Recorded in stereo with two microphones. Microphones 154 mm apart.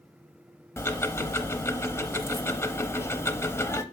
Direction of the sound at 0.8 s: 15° left (ahead or behind).